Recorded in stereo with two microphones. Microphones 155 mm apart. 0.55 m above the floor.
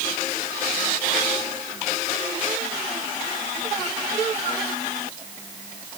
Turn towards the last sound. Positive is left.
No sound to turn to.